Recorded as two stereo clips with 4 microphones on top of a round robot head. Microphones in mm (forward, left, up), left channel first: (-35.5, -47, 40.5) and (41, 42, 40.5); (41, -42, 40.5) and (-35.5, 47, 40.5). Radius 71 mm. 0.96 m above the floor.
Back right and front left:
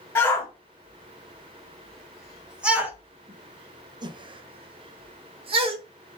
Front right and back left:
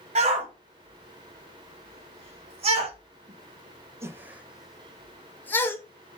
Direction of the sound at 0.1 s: 155° left.